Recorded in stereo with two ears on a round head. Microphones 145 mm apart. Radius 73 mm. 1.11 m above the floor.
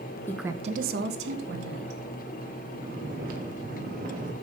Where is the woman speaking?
15° left (ahead or behind), 0.5 m; by 2.0 s 85° right, 2 m.